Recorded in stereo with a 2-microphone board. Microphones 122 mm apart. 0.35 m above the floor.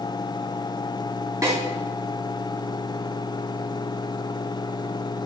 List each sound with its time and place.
1.4 s a snare drum: 30° right (ahead or behind), 2.5 m